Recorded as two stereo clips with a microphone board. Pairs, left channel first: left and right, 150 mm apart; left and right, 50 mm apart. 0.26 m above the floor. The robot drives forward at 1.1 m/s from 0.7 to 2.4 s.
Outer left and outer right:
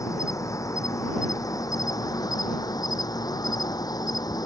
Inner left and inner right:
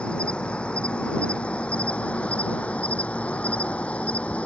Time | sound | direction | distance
0.0 | an insect | 20° left (ahead or behind) | ?